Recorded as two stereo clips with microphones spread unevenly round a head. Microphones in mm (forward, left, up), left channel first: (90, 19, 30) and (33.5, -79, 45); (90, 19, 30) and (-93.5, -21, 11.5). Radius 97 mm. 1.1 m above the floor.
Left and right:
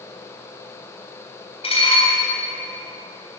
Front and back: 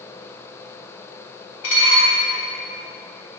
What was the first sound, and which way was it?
Dishes clattering, 20° left.